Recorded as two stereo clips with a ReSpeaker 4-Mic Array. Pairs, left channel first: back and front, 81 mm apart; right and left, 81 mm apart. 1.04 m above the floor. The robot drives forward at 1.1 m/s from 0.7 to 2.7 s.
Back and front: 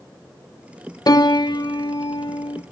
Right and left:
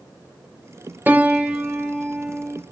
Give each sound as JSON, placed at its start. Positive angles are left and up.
{"t": 1.1, "sound": "a piano", "azimuth_deg": 155, "distance_m": 0.9}